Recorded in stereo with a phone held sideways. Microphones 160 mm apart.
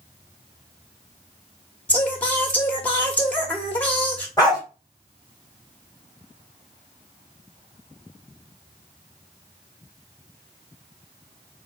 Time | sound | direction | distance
1.9 | singing | 10° left (ahead or behind) | 1.0 m
4.4 | a dog barking | 25° left (ahead or behind) | 1.7 m